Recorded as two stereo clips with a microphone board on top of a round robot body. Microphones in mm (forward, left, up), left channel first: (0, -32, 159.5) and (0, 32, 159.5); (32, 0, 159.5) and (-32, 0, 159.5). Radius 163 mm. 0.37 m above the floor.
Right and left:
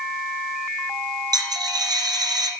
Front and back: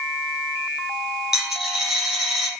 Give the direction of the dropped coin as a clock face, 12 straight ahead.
9 o'clock.